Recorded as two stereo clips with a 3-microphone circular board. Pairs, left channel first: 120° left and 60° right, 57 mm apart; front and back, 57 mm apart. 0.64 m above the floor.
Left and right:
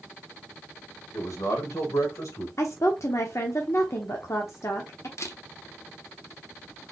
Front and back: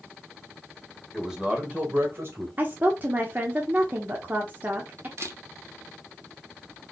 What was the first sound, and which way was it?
A man speaking, 95° left.